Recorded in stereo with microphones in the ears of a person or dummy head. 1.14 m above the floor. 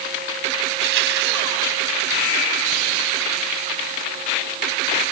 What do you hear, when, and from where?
0.7 s crushing: 70° right (ahead or behind)